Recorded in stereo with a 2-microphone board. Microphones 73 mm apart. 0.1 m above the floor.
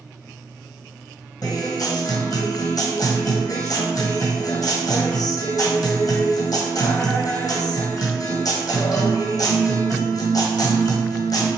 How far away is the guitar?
About 1.3 m.